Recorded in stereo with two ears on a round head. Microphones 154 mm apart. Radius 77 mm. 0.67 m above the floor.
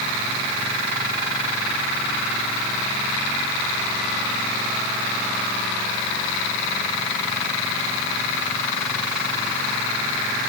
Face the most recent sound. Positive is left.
No sound to turn to.